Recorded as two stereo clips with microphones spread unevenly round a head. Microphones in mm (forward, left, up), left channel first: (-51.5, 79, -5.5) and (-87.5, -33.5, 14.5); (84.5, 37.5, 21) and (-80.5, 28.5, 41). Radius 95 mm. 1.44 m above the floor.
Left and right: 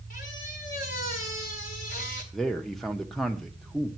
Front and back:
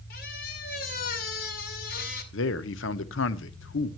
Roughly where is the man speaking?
Ahead.